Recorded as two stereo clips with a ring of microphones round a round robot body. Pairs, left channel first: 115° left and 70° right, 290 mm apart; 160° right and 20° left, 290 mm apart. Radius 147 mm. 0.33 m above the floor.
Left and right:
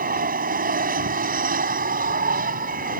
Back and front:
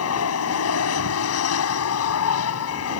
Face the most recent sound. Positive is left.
turn(degrees=-125)